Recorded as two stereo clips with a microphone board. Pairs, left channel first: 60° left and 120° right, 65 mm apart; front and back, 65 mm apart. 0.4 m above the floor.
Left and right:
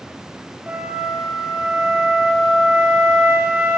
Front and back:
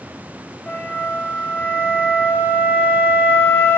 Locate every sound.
0.7 s a flute: 55° right, 0.9 m